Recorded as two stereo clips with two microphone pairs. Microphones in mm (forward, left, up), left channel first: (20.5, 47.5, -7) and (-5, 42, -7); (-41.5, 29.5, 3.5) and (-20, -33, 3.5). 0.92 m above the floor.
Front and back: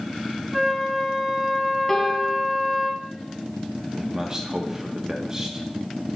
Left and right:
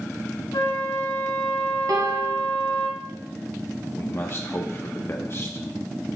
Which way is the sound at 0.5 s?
110° left.